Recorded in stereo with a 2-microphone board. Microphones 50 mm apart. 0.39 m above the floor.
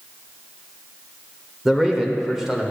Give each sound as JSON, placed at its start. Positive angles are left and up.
{"t": 1.6, "sound": "a man speaking", "side_deg": -5, "distance_m": 1.1}